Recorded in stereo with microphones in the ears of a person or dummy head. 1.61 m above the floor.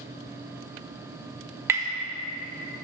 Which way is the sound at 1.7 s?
15° right (ahead or behind).